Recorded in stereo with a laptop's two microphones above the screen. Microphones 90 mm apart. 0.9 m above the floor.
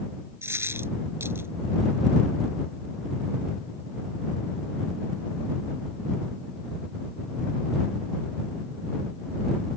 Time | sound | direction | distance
0.4 | a dropped coin | 25° right (ahead or behind) | ?